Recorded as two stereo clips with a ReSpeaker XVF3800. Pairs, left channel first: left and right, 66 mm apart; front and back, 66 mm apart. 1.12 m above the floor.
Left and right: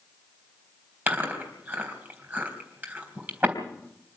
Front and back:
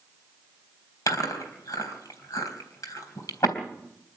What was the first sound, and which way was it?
Chewing, 30° right.